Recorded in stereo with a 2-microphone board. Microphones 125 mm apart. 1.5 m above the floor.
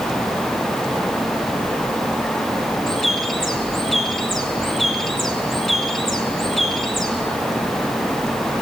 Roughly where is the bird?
Centre.